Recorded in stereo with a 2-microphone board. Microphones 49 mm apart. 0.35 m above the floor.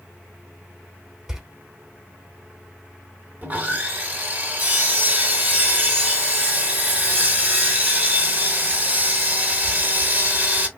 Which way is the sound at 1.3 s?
10° right (ahead or behind).